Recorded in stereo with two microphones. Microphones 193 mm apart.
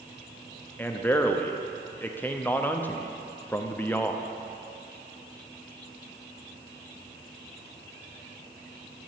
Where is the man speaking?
10° left (ahead or behind), 0.6 m.